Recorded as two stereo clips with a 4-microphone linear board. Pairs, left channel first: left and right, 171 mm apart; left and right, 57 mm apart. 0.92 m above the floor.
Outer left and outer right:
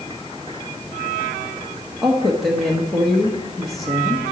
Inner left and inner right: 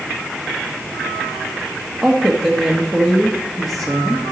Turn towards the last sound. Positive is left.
turn(degrees=0)  # may be behind; listen again after turning